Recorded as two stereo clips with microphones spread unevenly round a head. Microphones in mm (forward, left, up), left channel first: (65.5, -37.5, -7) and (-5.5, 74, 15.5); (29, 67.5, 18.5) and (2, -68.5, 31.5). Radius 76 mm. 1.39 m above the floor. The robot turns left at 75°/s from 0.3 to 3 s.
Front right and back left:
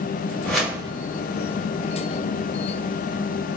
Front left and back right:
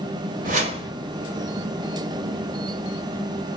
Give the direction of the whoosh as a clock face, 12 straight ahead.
4 o'clock.